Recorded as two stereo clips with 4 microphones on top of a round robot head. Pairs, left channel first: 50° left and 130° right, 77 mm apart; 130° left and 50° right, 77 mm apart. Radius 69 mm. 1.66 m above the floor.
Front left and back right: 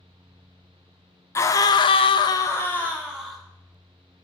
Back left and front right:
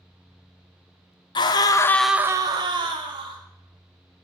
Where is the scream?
105° left, 1.1 m; by 3.4 s 30° right, 2.0 m.